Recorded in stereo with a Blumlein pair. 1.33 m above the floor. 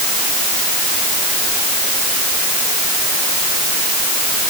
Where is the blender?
No blender in this recording.